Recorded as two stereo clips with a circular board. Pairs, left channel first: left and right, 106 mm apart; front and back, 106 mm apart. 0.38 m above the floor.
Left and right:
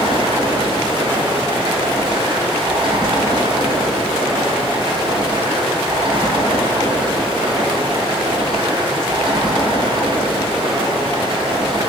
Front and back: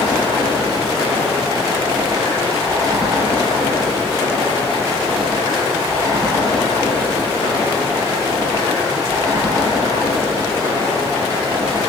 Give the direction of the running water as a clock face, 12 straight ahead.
4 o'clock.